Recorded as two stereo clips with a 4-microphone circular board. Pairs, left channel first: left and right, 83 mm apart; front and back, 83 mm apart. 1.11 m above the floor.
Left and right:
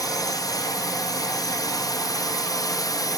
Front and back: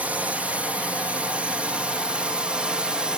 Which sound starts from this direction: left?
A drone, at 0.0 s.